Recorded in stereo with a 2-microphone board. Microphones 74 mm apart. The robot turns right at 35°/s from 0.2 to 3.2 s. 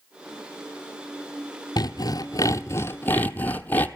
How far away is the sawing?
About 0.8 m.